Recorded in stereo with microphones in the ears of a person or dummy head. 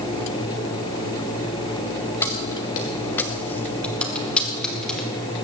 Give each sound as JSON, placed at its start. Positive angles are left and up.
{"t": 2.2, "sound": "keys jangling", "side_deg": 10, "distance_m": 1.1}